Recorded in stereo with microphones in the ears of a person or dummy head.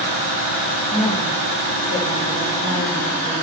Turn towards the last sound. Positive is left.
turn(degrees=-20)  # may be behind; listen again after turning